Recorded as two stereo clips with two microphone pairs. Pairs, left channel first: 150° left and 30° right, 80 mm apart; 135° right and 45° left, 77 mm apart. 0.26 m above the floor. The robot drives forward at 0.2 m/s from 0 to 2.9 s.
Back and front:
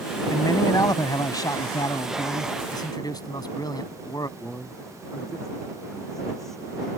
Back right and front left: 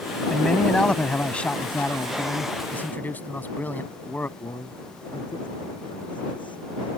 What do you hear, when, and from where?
0.3 s a man speaking: 150° left; by 2.5 s 160° left
2.7 s a man speaking: 165° left
4.4 s a man speaking: 125° right